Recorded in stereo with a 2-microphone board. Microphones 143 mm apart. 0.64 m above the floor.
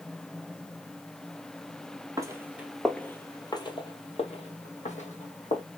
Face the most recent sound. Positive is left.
turn(degrees=65)  # may be behind; listen again after turning